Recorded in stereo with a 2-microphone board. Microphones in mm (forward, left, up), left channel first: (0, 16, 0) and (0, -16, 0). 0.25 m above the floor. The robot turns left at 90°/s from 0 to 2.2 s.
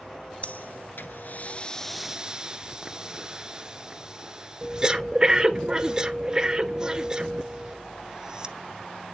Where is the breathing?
45° left (ahead or behind), 0.6 m; by 8.6 s 20° right (ahead or behind), 0.6 m.